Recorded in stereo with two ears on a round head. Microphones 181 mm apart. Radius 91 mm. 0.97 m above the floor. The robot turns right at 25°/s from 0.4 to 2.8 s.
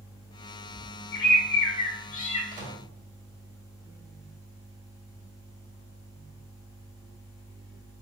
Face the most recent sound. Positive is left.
turn(degrees=-35)  # may be behind; listen again after turning